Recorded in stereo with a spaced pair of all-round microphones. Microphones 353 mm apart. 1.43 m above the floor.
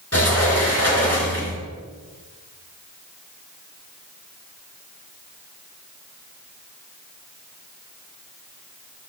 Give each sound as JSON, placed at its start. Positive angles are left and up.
{"t": 0.1, "sound": "a sliding door", "side_deg": 45, "distance_m": 4.0}